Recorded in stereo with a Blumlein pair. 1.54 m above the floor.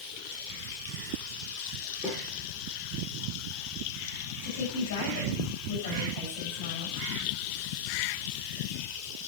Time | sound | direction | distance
2.0 | a snare drum | 20° left | 9 m
4.4 | a woman speaking | 60° left | 10 m